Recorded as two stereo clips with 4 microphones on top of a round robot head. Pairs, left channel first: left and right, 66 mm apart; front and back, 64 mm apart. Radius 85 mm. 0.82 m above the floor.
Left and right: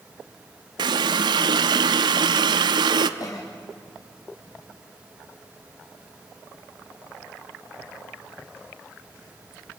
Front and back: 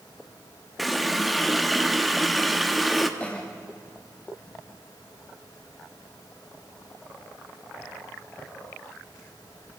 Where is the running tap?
90° right, 0.7 m.